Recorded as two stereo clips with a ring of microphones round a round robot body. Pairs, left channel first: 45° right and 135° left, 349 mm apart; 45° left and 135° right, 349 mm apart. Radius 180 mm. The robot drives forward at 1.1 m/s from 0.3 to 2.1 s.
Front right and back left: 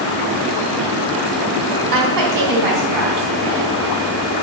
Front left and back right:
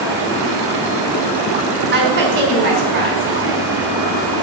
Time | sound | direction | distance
1.9 | a woman speaking | 165° left | 3.5 m